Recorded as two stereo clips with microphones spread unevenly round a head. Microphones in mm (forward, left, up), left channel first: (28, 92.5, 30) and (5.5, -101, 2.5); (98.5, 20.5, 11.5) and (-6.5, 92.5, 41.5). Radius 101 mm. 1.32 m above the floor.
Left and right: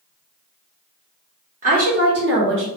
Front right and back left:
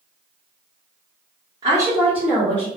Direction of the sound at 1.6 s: 145° right.